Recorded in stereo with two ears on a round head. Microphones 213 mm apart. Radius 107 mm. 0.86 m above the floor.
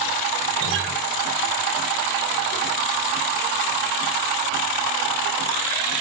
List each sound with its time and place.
0.6 s a guitar: 55° right (ahead or behind), 2.5 m